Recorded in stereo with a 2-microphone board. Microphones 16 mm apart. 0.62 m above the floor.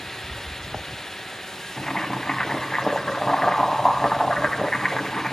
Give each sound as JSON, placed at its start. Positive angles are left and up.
{"t": 1.8, "sound": "boiling", "side_deg": 40, "distance_m": 2.5}